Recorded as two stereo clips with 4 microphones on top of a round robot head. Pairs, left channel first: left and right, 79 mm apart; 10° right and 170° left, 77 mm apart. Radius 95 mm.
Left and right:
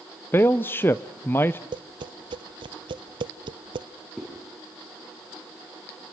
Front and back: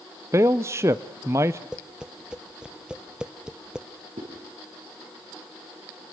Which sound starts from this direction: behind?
A zipper, at 4.2 s.